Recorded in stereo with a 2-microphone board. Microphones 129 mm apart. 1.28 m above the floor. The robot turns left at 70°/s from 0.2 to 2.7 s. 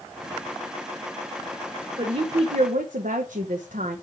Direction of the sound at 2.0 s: 35° right.